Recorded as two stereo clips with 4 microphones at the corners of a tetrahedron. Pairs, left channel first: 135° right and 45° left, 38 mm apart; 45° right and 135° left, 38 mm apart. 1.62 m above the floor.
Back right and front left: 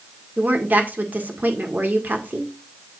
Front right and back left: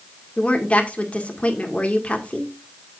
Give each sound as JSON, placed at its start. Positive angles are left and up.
{"t": 0.4, "sound": "a woman speaking", "azimuth_deg": 10, "distance_m": 1.7}